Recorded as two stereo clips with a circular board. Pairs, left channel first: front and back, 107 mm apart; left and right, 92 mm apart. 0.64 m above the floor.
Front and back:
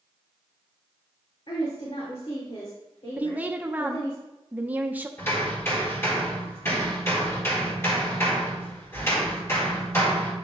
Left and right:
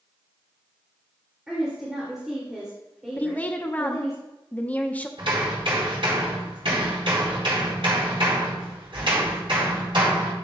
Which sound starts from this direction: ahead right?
Hammering, at 5.2 s.